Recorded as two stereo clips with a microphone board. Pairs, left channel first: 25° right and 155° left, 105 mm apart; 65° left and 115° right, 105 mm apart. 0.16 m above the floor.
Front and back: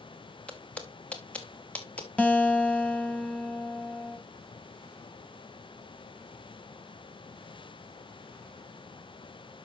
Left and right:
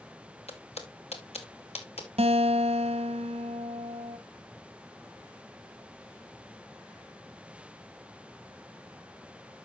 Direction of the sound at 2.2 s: 100° right.